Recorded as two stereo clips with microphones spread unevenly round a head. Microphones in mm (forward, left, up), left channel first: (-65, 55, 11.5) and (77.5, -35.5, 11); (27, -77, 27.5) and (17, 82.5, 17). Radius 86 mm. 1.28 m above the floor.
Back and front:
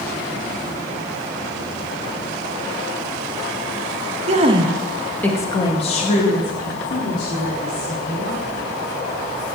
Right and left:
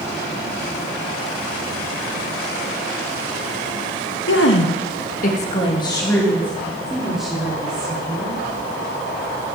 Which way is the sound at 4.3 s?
85° right.